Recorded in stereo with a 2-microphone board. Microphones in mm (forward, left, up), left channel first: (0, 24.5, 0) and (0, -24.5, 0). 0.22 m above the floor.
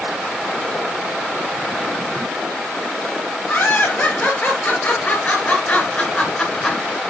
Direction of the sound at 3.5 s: 40° left (ahead or behind).